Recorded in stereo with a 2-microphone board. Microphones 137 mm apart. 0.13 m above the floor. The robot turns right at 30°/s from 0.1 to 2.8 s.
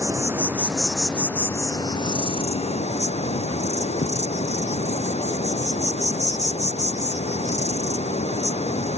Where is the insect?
25° right; by 9.0 s 55° left.